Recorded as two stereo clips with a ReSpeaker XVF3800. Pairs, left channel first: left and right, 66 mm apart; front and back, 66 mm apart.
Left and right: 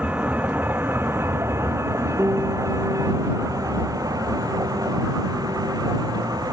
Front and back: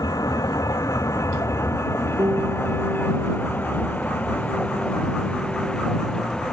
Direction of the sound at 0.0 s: 20° right.